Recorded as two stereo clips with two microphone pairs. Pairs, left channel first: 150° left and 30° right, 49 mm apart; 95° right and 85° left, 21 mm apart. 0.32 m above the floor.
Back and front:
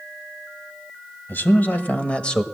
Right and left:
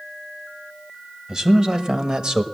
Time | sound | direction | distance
1.3 | a man speaking | 140° left | 1.2 m